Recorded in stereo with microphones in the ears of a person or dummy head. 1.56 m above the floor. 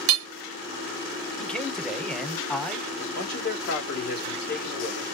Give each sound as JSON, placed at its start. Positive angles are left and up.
{"t": 0.1, "sound": "hammering", "side_deg": -80, "distance_m": 0.7}
{"t": 1.4, "sound": "a man speaking", "side_deg": 5, "distance_m": 0.9}
{"t": 3.0, "sound": "a man speaking", "side_deg": 55, "distance_m": 1.8}